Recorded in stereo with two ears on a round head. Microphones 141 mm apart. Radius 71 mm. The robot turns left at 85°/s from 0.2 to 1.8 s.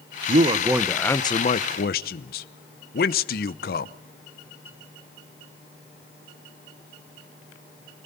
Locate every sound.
0.3 s a man speaking: 125° right, 0.8 m; by 3.9 s 105° left, 0.8 m